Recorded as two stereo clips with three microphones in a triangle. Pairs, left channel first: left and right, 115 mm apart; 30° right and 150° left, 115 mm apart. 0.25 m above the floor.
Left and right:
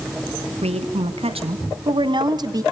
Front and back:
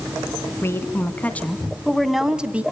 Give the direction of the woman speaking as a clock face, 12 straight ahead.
3 o'clock.